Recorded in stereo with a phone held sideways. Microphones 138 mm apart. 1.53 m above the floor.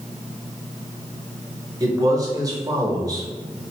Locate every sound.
1.8 s a man speaking: 25° right (ahead or behind), 1.1 m